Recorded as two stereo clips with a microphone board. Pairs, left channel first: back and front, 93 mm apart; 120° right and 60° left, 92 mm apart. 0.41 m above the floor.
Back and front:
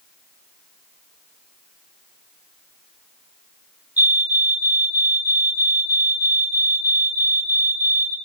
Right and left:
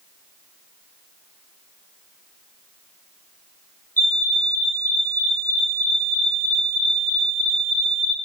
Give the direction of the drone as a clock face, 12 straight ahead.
I don't hear a drone.